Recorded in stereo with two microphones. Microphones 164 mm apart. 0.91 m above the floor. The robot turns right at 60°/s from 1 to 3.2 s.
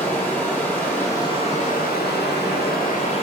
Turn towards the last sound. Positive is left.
turn(degrees=145)